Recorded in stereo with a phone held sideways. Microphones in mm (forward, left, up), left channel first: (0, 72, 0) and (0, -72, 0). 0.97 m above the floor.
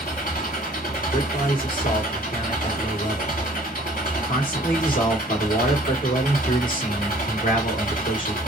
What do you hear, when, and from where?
0.0 s an engine running: 75° left (ahead or behind), 2 m
1.1 s a man speaking: 70° left (ahead or behind), 2 m